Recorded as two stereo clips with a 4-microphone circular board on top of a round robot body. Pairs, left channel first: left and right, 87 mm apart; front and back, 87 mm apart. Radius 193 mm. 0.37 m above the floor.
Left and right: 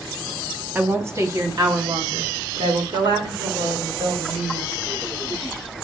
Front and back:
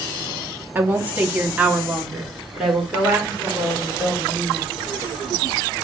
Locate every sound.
0.8 s a woman speaking: 135° right, 1.2 m; by 4.7 s 90° right, 3 m